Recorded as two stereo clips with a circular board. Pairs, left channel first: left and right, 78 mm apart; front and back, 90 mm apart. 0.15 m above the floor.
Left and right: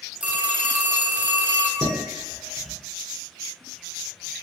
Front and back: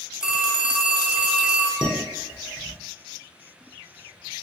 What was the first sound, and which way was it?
A phone ringing, 115° right.